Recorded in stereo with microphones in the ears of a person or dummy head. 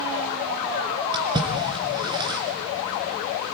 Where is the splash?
25° right (ahead or behind), 3 m.